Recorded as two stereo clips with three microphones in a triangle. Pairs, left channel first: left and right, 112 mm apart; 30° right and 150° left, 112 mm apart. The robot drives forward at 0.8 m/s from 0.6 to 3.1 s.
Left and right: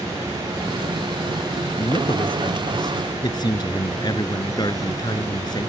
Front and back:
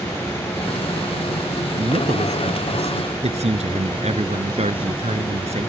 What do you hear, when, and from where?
1.8 s a man speaking: 130° left; by 5.7 s 140° left